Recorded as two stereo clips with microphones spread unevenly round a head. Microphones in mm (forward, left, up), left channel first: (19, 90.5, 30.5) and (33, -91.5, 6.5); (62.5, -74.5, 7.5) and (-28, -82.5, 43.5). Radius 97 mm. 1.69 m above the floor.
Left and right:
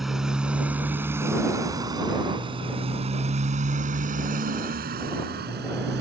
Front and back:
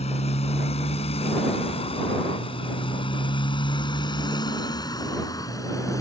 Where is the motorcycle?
5° left; by 6.0 s 55° right.